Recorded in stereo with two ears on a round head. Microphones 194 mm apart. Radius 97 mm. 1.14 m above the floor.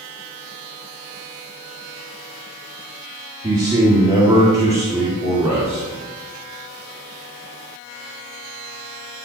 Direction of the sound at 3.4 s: 20° right (ahead or behind).